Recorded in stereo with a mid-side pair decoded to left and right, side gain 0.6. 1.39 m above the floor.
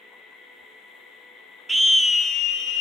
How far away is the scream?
About 0.5 m.